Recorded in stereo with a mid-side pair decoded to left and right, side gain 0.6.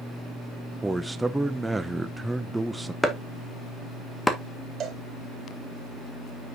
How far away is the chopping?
About 1.7 m.